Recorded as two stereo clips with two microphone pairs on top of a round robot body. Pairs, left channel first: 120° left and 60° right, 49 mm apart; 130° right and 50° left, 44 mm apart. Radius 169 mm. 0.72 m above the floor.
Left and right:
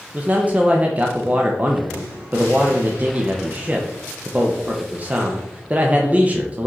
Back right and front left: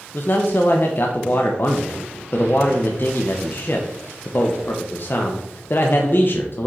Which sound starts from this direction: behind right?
A man speaking, at 0.1 s.